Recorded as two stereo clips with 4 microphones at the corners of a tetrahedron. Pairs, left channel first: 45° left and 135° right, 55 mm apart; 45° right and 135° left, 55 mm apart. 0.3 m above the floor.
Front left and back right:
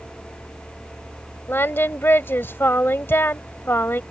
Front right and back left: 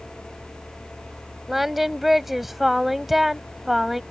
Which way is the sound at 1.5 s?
50° left.